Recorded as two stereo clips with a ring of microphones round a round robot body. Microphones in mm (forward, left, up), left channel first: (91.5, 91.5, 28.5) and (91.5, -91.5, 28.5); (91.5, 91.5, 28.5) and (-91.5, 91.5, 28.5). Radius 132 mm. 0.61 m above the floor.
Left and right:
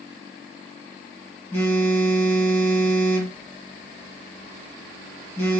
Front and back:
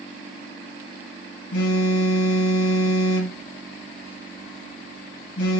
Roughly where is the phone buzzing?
Ahead.